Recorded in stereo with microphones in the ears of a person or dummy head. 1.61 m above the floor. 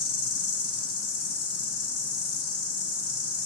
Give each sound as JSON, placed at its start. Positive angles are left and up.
{"t": 0.0, "sound": "an insect", "side_deg": 65, "distance_m": 1.0}